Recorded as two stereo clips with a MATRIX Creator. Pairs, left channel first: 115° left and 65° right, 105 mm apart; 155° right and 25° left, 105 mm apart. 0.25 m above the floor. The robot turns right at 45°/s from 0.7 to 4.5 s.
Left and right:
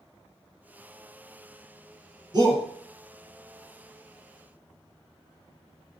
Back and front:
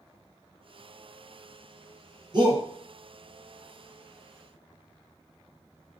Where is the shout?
20° right, 3 m; by 2.6 s 5° right, 3 m.